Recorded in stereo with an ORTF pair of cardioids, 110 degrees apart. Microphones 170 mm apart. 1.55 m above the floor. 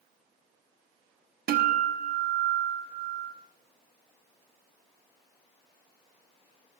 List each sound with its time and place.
1.5 s a guitar: 65° right, 1.3 m